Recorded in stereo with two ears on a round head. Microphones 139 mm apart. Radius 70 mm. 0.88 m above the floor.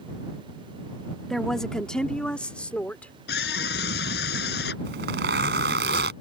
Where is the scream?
85° left.